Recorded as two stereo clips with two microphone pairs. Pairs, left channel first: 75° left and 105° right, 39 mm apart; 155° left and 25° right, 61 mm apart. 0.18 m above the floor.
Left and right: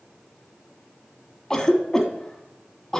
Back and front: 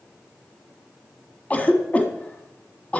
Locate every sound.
1.5 s a cough: 135° left, 1.1 m